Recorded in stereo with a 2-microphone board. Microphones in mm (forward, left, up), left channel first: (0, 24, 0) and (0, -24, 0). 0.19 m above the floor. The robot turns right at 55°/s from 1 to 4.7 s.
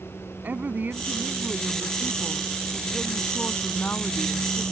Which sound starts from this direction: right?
A woman speaking, at 0.4 s.